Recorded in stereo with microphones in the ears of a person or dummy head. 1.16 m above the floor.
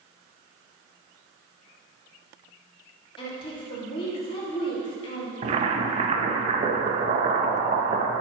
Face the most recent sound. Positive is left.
turn(degrees=-35)  # may be behind; listen again after turning